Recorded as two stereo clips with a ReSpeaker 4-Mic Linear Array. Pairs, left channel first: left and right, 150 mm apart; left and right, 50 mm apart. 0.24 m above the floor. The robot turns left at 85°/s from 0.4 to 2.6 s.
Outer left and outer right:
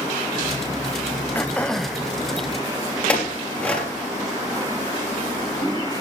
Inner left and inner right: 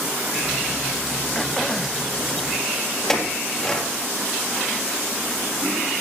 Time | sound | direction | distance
1.4 | throat clearing | 15° left (ahead or behind) | 0.9 m
3.1 | a clink | 10° left (ahead or behind) | 4 m